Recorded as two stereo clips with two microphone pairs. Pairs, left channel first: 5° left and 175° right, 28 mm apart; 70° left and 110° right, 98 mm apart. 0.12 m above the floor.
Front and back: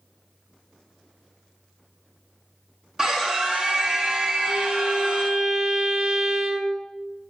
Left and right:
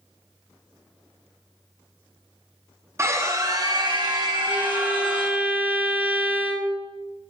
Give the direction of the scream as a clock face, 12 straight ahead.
4 o'clock.